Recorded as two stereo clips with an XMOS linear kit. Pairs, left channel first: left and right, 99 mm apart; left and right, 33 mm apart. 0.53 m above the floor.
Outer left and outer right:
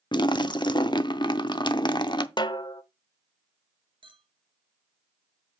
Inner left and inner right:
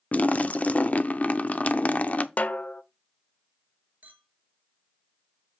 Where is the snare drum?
50° left (ahead or behind), 0.6 m.